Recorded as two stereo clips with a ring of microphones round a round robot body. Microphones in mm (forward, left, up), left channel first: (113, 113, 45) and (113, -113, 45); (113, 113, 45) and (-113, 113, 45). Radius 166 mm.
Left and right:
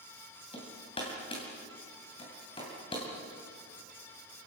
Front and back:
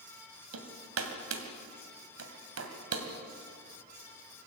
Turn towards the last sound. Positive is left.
turn(degrees=165)